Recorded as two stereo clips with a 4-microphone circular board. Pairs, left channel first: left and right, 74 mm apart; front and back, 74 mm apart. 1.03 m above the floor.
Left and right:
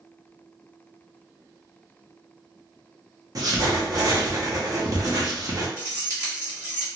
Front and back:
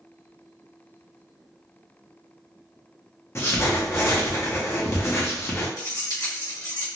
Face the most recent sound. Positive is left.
turn(degrees=-35)